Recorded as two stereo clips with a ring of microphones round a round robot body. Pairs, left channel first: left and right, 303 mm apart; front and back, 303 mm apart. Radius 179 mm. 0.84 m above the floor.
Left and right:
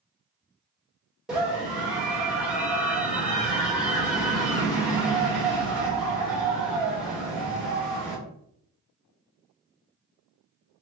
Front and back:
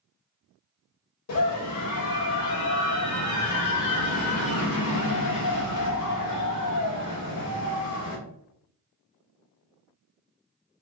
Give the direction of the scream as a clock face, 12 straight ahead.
12 o'clock.